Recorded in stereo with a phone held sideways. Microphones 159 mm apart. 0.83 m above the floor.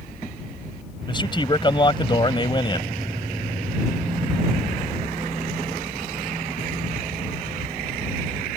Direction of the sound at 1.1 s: 30° left (ahead or behind).